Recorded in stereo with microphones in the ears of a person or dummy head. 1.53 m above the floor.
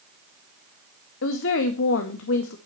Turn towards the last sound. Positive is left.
turn(degrees=75)  # may be behind; listen again after turning